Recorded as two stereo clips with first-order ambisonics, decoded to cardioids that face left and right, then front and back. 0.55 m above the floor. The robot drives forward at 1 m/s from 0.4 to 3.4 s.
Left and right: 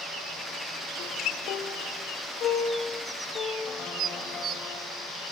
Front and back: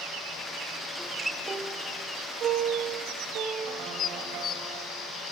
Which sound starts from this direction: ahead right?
Dishes clattering, at 4.0 s.